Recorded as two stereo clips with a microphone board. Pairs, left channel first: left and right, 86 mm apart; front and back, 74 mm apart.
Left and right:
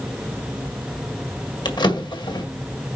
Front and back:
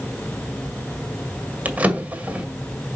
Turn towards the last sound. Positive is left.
turn(degrees=110)